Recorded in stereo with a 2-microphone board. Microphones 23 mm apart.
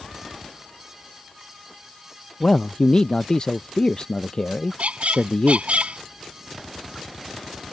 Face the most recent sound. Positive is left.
turn(degrees=-75)  # may be behind; listen again after turning